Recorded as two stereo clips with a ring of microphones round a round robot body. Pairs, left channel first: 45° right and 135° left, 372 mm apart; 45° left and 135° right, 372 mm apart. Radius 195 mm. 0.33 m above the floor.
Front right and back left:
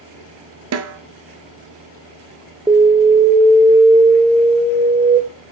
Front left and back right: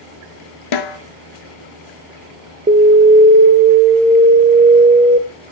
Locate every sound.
0.7 s a snare drum: 80° left, 1.1 m
2.7 s an alarm: 155° right, 1.6 m